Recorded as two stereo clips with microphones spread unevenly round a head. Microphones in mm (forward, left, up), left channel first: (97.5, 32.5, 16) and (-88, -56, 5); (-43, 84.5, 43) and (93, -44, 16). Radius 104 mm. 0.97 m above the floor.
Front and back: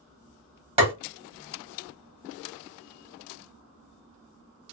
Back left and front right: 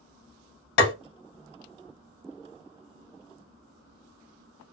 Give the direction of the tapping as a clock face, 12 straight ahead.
7 o'clock.